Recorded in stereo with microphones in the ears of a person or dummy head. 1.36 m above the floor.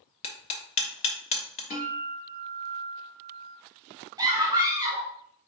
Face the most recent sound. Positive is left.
turn(degrees=-10)  # may be behind; listen again after turning